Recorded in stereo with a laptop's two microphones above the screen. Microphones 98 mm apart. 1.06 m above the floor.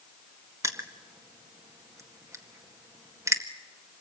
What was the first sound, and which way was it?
Crushing, 30° right (ahead or behind).